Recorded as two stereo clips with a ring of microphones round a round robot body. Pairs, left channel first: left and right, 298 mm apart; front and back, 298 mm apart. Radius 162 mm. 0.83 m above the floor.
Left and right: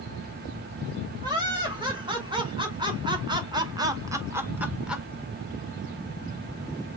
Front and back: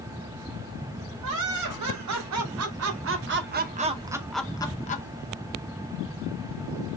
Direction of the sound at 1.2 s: 165° right.